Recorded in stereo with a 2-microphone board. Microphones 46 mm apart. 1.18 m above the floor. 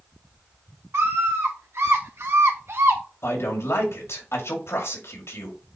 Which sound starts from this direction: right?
A scream, at 0.9 s.